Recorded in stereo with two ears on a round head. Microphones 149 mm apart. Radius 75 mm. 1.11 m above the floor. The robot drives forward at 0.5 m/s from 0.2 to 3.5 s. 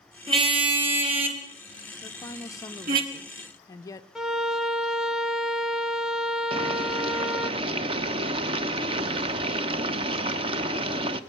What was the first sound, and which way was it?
A car horn, 25° right (ahead or behind).